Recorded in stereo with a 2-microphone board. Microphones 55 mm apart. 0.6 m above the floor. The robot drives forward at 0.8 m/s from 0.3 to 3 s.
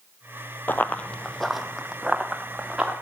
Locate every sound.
0.7 s running footsteps: 40° left (ahead or behind), 0.7 m; by 2.9 s 15° right (ahead or behind), 3 m